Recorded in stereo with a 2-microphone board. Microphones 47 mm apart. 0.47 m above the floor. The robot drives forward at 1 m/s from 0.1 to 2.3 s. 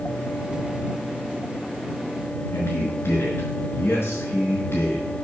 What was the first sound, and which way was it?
A man speaking, 60° left (ahead or behind).